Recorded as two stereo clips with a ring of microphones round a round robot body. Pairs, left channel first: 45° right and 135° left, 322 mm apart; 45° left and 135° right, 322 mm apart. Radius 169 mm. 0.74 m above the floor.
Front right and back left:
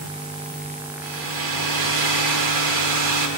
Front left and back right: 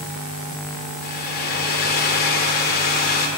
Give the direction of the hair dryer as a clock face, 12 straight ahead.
8 o'clock.